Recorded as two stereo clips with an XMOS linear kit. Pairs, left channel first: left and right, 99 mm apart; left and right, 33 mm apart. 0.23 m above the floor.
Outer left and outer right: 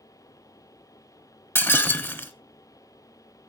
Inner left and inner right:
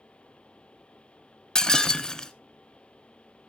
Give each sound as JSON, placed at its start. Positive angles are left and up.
{"t": 1.6, "sound": "breaking glass", "side_deg": 25, "distance_m": 0.7}